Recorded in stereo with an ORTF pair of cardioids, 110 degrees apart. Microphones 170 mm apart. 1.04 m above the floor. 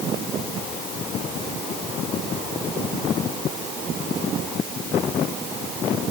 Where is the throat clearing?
No throat clearing in this recording.